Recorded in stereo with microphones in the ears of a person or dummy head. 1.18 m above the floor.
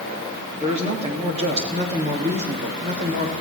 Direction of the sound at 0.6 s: 40° right (ahead or behind).